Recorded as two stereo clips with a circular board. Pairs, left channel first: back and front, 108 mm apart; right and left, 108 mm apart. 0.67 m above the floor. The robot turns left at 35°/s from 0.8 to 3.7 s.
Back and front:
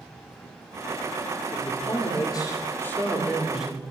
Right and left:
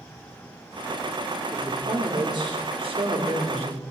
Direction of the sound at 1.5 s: 160° left.